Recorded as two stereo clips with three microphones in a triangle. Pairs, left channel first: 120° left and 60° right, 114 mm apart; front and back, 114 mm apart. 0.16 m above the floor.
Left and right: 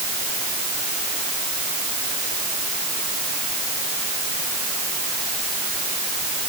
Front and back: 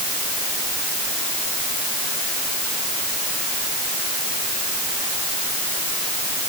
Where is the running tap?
No running tap in this recording.